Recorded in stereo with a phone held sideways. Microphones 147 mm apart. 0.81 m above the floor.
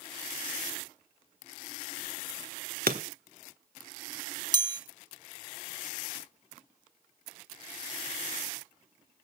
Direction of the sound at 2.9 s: 90° right.